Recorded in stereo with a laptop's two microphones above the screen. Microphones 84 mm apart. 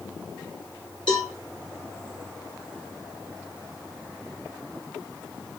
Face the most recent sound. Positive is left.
turn(degrees=70)  # may be behind; listen again after turning